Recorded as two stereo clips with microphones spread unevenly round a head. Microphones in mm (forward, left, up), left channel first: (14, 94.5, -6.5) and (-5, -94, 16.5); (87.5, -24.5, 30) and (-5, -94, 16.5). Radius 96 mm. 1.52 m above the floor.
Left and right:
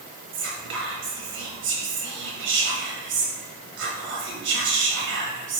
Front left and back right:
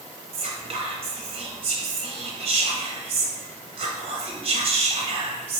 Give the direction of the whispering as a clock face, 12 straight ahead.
3 o'clock.